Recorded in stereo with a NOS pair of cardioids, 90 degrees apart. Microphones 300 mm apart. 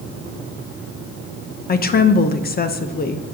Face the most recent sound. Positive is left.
turn(degrees=30)